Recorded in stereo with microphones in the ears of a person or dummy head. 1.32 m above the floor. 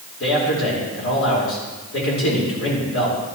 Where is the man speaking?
70° left (ahead or behind), 5 m.